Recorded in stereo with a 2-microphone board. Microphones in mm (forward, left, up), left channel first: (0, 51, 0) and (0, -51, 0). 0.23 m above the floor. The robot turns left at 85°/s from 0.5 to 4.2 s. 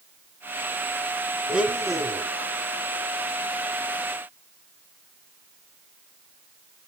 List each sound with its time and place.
1.5 s a blender: 5° right, 1.2 m; by 2.3 s 70° right, 1.2 m